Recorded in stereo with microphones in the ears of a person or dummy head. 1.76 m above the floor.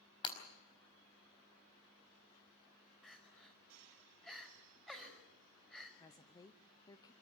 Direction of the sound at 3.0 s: 5° left (ahead or behind).